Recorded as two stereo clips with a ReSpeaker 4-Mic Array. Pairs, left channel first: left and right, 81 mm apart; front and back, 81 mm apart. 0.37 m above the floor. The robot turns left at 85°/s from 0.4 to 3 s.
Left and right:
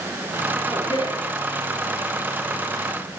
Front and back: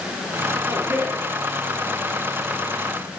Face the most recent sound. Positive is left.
turn(degrees=-60)